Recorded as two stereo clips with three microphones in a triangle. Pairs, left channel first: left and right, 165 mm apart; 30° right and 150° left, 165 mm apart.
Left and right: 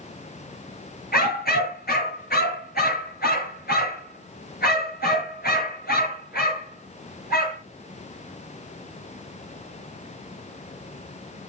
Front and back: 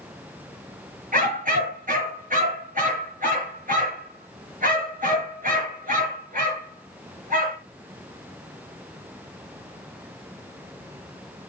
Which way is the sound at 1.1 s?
115° left.